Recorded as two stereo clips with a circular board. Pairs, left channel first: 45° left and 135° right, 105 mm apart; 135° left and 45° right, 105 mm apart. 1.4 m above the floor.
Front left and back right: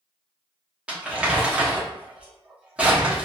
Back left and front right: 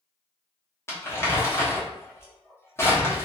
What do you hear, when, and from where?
0.9 s crumpling: 160° left, 0.9 m